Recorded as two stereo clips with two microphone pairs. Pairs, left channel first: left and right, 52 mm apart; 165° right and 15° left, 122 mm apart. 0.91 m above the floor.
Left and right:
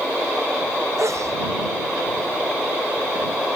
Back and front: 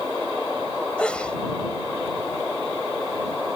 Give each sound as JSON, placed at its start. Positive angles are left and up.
{"t": 1.0, "sound": "a sneeze", "azimuth_deg": -80}